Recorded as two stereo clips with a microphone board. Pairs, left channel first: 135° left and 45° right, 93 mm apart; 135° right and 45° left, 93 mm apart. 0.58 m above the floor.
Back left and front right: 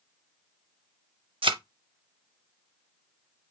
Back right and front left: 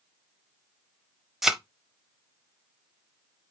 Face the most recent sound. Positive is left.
turn(degrees=-40)